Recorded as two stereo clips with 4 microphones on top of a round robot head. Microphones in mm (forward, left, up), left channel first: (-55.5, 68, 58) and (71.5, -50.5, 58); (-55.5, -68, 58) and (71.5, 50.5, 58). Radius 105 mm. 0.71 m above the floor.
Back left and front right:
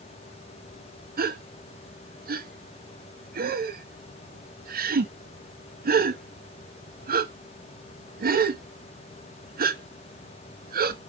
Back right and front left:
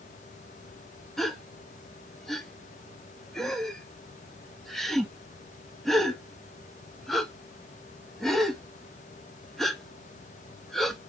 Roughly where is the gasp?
Ahead right.